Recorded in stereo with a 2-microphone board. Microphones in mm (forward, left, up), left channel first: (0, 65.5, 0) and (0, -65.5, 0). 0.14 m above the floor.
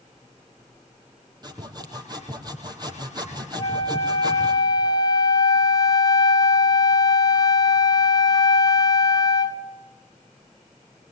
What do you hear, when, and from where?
1.4 s sawing: 30° right (ahead or behind), 4 m
3.6 s a flute: 35° left (ahead or behind), 1.2 m